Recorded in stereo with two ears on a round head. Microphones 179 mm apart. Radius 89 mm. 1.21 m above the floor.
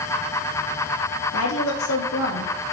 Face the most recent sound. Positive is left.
turn(degrees=80)